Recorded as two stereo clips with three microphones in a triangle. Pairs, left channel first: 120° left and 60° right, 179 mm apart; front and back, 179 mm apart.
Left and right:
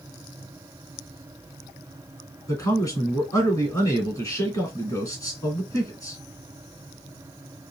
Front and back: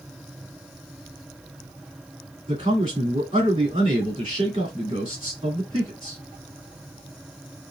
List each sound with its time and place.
2.5 s a man speaking: 175° left, 1.6 m